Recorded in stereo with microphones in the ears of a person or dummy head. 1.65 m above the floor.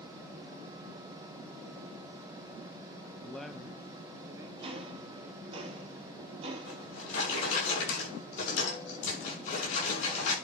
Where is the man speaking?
5° left (ahead or behind), 0.5 m; by 5.6 s 30° right (ahead or behind), 1.6 m.